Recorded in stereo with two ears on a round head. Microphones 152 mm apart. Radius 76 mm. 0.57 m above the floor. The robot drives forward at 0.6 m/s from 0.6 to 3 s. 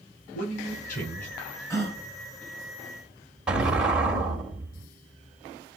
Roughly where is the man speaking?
Left.